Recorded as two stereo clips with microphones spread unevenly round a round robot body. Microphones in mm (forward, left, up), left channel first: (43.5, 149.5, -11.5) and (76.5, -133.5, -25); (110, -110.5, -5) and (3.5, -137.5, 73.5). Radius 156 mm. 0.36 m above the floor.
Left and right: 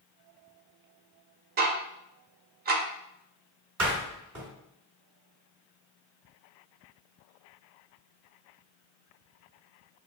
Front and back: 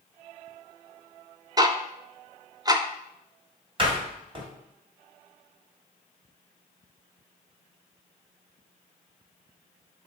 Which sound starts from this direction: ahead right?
Ticking, at 1.6 s.